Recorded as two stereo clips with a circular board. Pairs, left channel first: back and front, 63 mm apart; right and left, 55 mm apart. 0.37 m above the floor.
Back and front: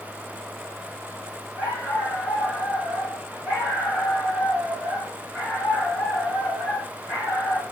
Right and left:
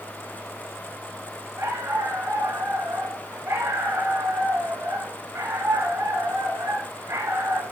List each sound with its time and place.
1.6 s a dog barking: 70° left, 9.5 m